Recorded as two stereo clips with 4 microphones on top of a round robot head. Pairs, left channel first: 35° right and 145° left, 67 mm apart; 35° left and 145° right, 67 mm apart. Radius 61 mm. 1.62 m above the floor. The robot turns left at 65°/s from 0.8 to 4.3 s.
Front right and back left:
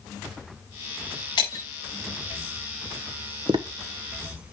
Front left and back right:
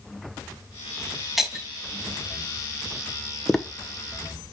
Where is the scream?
No scream in this recording.